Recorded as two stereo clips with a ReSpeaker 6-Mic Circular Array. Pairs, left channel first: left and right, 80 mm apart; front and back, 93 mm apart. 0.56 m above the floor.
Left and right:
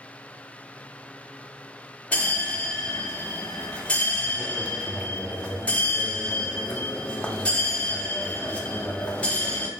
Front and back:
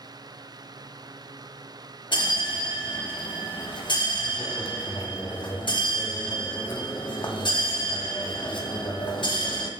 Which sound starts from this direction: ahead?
A bell, at 2.1 s.